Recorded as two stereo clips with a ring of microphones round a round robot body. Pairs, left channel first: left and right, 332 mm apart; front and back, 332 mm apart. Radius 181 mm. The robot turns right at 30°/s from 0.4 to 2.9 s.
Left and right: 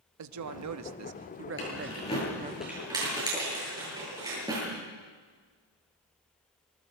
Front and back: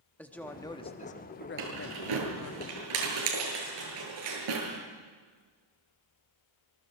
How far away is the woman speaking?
About 1.1 m.